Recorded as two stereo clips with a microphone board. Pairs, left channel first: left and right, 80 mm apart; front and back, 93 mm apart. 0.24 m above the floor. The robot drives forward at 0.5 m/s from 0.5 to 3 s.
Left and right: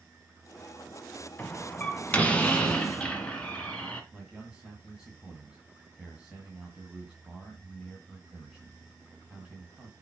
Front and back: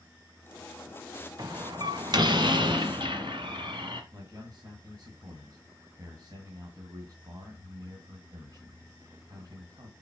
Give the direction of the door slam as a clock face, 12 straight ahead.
7 o'clock.